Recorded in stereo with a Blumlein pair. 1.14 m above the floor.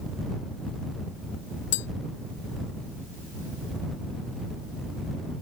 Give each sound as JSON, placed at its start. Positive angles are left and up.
{"t": 1.7, "sound": "tapping", "azimuth_deg": 50}